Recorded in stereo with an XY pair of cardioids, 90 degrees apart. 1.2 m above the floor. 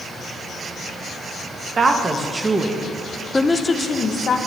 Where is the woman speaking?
40° right, 1.4 m; by 4.4 s 60° left, 1.1 m.